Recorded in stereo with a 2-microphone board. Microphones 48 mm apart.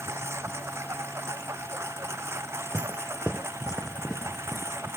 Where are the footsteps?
30° right (ahead or behind); by 4.7 s 5° right (ahead or behind).